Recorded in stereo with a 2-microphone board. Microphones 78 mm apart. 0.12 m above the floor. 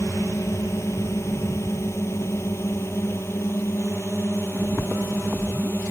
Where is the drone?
40° left (ahead or behind); by 5.9 s 30° left (ahead or behind).